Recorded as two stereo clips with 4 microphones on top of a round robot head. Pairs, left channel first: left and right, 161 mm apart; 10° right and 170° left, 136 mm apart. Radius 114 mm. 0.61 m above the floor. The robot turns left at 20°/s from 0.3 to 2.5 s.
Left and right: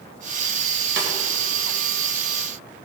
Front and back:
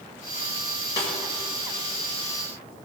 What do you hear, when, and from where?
1.0 s a snare drum: 80° right, 1.9 m; by 1.1 s 85° right, 1.9 m